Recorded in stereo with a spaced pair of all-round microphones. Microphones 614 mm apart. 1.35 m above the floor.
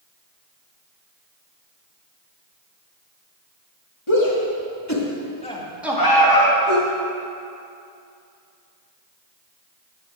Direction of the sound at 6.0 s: 35° left (ahead or behind).